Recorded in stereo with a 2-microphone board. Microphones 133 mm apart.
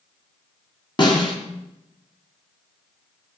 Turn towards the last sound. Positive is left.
turn(degrees=40)  # may be behind; listen again after turning